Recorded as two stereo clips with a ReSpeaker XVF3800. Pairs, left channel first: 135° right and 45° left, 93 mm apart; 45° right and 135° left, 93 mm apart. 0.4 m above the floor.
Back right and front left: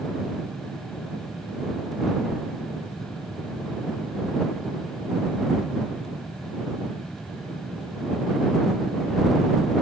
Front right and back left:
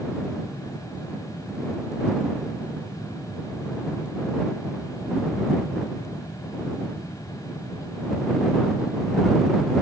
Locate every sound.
Only background noise.